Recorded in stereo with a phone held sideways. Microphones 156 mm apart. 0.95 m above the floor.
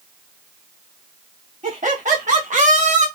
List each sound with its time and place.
1.6 s laughter: 55° right (ahead or behind), 2.5 m